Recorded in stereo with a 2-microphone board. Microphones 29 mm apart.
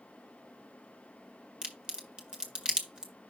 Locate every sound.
1.6 s a crack: 25° right (ahead or behind), 1.8 m